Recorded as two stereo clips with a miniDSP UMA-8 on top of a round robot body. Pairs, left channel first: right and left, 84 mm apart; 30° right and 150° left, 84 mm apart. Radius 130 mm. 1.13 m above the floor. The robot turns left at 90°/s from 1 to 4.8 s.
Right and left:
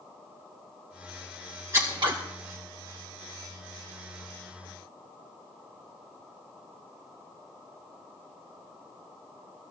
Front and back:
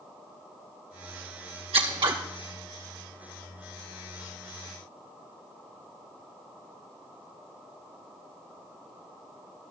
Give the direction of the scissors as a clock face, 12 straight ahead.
7 o'clock.